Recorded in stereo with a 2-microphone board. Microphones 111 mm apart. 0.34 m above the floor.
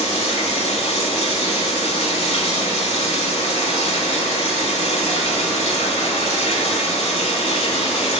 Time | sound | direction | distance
0.0 | running water | 75° left (ahead or behind) | 0.7 m